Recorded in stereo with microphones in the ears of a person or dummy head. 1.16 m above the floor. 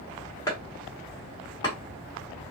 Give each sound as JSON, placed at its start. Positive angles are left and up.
{"t": 0.5, "sound": "chopping", "side_deg": 20, "distance_m": 1.8}